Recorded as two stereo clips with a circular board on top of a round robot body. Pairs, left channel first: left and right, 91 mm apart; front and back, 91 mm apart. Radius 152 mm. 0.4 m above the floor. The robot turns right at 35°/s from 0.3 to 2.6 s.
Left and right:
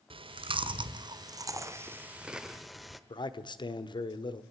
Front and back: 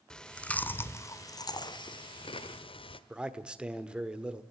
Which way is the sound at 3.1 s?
100° left.